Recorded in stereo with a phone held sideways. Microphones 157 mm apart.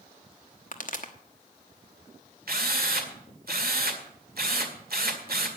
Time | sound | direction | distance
0.7 | a pop | 60° left (ahead or behind) | 1.2 m
2.5 | a drill | 70° right (ahead or behind) | 1.9 m